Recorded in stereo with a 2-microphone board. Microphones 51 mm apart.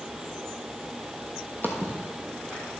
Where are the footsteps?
40° left (ahead or behind), 1.4 m; by 2.6 s 35° left (ahead or behind), 3 m.